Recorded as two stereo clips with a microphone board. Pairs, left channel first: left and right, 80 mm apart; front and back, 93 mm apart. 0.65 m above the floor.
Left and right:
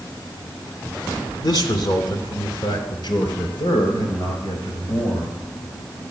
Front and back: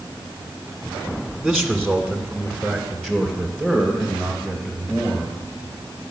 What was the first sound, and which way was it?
A man speaking, 85° left.